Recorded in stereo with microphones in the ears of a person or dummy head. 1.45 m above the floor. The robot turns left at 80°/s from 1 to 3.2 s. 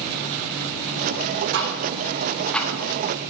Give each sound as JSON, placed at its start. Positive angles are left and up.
{"t": 1.5, "sound": "ticking", "side_deg": -60, "distance_m": 1.0}